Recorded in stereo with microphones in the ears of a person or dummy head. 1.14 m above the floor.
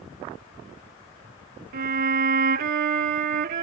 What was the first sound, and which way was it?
A violin, 45° right (ahead or behind).